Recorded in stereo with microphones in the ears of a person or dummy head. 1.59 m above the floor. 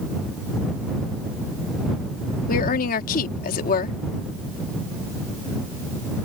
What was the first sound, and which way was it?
A woman speaking, 50° left (ahead or behind).